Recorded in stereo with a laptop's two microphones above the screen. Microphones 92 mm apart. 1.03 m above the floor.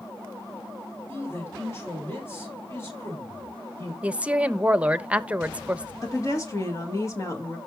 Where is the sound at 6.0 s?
35° left (ahead or behind), 1.6 m.